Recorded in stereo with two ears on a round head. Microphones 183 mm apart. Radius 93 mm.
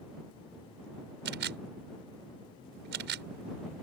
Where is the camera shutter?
55° right (ahead or behind).